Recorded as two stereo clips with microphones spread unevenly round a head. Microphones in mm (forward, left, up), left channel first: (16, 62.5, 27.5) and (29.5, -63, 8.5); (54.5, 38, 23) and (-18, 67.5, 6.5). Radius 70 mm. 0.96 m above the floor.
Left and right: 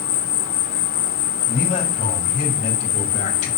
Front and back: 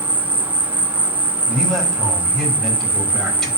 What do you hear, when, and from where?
0.0 s an insect: 90° left, 1.3 m
1.5 s a man speaking: 65° left, 5 m